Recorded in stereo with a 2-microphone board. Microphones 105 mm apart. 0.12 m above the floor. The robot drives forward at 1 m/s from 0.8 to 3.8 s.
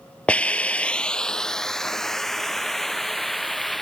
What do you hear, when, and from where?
0.3 s a hiss: 10° left (ahead or behind); by 3.8 s centre (ahead or behind)